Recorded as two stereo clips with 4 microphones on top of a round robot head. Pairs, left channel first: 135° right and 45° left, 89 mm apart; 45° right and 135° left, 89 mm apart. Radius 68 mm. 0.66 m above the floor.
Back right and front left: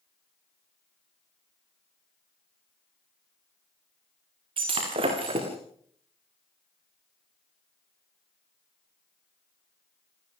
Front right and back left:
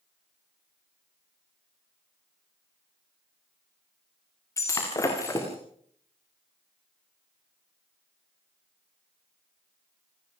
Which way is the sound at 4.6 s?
15° left.